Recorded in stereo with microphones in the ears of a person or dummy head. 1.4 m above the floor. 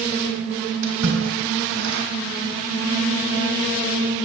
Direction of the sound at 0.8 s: 80° right.